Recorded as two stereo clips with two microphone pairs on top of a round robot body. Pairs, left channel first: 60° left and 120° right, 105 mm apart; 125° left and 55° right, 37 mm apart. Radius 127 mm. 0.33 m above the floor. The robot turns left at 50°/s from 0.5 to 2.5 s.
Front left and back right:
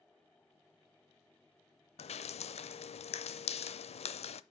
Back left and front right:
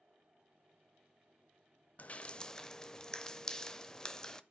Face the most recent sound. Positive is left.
turn(degrees=50)